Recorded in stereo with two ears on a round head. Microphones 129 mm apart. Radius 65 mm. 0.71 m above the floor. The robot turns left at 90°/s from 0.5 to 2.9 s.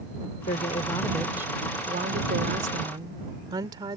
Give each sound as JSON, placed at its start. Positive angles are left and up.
{"t": 0.5, "sound": "a woman speaking", "azimuth_deg": 65}